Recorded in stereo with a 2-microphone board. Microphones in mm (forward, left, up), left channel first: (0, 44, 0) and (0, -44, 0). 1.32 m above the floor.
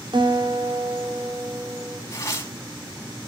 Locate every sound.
0.1 s a guitar: 70° right (ahead or behind), 2.5 m
2.1 s tearing paper: 35° left (ahead or behind), 3.5 m